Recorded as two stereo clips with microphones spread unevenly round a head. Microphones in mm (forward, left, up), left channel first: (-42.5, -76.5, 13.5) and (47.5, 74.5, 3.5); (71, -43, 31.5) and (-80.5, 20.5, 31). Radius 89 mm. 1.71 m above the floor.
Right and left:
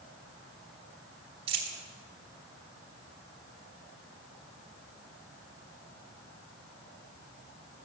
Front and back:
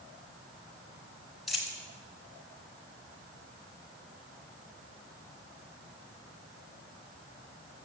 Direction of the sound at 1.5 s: 70° left.